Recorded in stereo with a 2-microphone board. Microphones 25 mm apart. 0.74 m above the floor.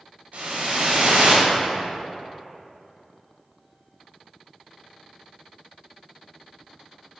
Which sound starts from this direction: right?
A whoosh, at 0.3 s.